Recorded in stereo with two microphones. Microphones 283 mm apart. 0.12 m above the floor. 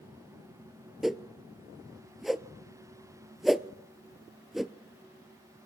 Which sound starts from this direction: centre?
A whoosh, at 1.0 s.